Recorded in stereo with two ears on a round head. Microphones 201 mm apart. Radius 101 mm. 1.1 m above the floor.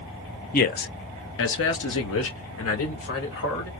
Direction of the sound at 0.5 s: 35° left (ahead or behind).